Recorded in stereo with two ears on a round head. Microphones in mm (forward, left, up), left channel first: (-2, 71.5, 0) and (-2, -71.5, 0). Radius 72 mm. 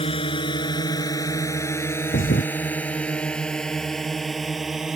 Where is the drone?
35° left (ahead or behind); by 5.0 s centre (ahead or behind).